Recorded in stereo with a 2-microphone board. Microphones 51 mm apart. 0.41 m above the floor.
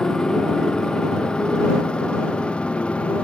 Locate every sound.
0.0 s a motorcycle: 15° left (ahead or behind); by 3.2 s 20° left (ahead or behind)